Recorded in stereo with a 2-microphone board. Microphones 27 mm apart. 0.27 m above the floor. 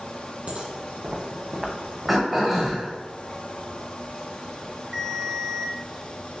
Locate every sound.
0.5 s footsteps: 60° right (ahead or behind), 1.6 m; by 2.8 s 25° left (ahead or behind), 1.0 m
2.1 s throat clearing: 5° right (ahead or behind), 1.5 m
4.9 s a ringtone: 10° right (ahead or behind), 0.7 m